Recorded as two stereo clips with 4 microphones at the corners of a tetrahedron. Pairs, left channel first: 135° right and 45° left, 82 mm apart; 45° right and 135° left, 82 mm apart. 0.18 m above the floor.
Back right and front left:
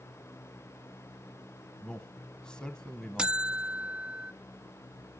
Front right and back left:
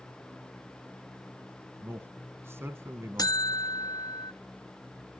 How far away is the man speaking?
About 1.1 m.